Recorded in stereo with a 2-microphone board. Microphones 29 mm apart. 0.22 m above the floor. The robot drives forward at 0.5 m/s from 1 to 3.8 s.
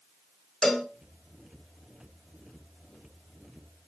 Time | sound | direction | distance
0.6 | a cowbell | 10° left (ahead or behind) | 1.5 m